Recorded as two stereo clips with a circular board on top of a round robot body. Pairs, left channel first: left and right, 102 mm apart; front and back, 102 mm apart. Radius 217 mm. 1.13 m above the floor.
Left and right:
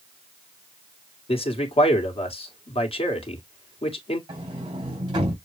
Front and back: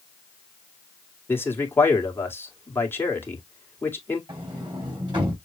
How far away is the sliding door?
About 3.5 m.